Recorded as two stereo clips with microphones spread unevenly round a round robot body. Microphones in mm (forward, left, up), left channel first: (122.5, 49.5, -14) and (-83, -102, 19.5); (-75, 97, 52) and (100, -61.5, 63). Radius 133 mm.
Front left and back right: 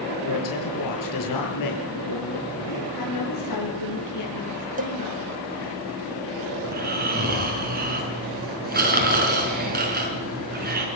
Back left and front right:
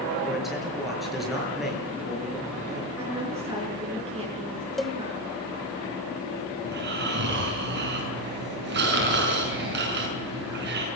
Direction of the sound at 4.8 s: 140° right.